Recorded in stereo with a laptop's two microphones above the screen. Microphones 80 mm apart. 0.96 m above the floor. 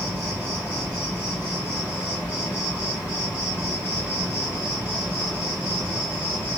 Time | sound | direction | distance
0.0 | an insect | 20° right (ahead or behind) | 2.5 m